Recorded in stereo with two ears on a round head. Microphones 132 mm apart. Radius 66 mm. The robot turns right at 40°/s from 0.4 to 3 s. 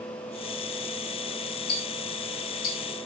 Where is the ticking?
70° left (ahead or behind), 2.5 m; by 2.8 s 65° left (ahead or behind), 2.5 m.